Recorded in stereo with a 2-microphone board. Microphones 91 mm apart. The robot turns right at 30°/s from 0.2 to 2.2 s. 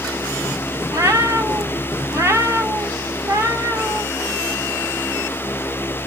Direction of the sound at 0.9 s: 100° right.